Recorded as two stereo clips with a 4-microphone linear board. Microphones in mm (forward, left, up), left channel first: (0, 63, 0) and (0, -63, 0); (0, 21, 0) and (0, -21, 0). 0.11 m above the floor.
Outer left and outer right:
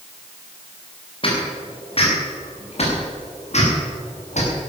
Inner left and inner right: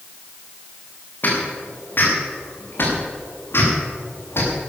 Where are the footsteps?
45° left (ahead or behind), 6.5 m; by 4.6 s 65° left (ahead or behind), 7.5 m.